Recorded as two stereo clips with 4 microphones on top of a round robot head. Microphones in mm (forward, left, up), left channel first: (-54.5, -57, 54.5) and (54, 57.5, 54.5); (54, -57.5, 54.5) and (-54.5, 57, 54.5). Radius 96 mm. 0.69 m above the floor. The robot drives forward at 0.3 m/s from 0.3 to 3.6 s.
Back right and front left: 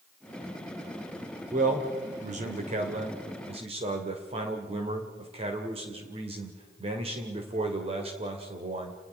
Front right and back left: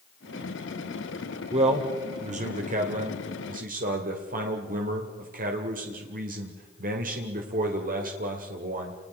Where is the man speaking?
85° left, 2.5 m; by 9.0 s 100° left, 2.5 m.